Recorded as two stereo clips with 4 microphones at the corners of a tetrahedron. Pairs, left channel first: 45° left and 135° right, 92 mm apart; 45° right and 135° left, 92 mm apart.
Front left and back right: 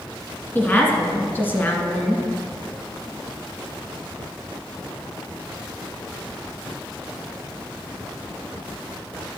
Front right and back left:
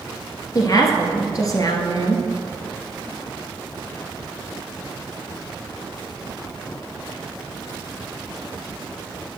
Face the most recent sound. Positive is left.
turn(degrees=-15)